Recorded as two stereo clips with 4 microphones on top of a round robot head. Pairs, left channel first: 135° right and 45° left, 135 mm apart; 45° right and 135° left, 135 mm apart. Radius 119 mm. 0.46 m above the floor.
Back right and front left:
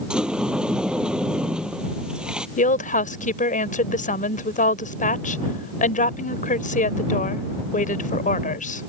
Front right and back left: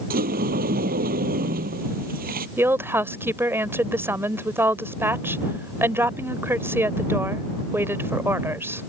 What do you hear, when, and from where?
0.1 s a sliding door: 130° left
2.6 s a woman speaking: 150° right